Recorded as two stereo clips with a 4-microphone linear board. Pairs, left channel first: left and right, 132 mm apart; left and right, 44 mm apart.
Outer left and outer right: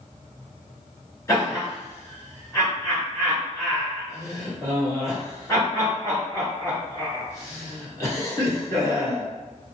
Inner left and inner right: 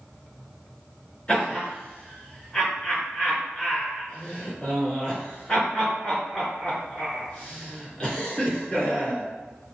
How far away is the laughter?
About 1.5 m.